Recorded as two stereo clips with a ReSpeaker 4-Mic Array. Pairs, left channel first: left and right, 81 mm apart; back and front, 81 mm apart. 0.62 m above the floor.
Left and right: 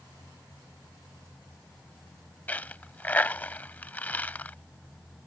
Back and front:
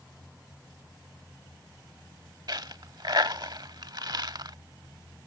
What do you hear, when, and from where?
2.5 s a dropped coin: 20° left